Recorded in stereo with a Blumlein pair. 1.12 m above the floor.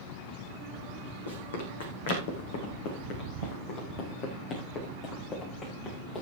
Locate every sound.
1.3 s running footsteps: 70° left, 4 m; by 6.2 s 25° left, 6.5 m